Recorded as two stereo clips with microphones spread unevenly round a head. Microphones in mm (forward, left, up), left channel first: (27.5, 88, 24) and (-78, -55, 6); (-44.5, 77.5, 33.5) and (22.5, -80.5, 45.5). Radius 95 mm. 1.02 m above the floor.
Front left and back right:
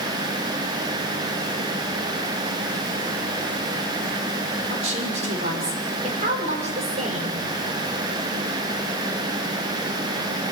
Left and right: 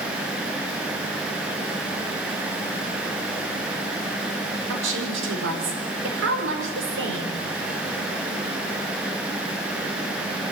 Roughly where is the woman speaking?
Right.